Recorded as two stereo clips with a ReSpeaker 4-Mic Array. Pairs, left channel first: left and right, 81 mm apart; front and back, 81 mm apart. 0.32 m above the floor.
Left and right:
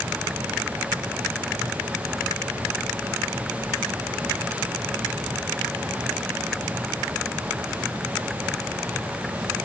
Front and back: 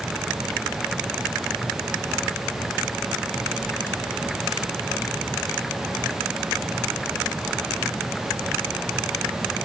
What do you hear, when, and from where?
Only background noise.